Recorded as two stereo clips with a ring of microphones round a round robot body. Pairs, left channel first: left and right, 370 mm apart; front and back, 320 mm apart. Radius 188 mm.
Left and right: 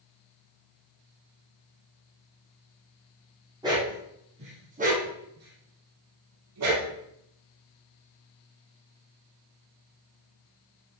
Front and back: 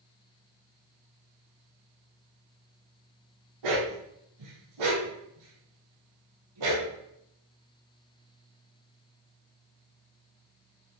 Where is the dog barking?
170° right, 5 m; by 6.9 s 140° right, 3.5 m.